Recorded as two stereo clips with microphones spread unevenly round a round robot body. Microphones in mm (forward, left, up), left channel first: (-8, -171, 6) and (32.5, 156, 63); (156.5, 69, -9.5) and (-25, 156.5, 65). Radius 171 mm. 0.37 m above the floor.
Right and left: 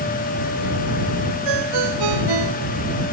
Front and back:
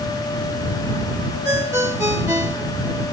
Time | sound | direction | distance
1.4 | a ringtone | 80° left | ?